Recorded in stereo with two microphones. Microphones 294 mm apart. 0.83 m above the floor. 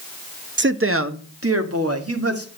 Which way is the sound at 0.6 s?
40° right (ahead or behind).